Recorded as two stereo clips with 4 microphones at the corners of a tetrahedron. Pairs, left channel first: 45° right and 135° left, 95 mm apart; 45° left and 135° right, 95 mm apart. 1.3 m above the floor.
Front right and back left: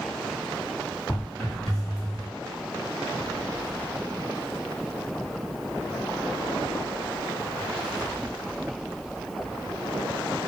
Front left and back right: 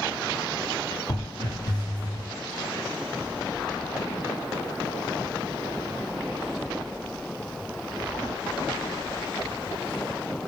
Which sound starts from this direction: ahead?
Footsteps, at 1.1 s.